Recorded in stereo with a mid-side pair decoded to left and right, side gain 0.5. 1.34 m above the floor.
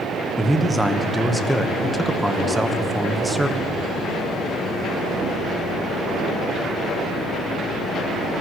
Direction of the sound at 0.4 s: 5° right.